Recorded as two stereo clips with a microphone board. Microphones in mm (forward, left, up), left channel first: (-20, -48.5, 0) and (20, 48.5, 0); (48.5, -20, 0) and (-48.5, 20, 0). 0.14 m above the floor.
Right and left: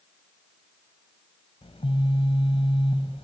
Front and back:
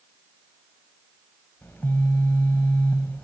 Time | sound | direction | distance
1.6 | a phone buzzing | 95° right | 3.5 m